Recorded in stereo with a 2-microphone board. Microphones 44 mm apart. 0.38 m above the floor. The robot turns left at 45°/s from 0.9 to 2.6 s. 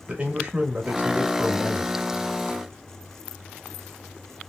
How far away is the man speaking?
About 0.9 m.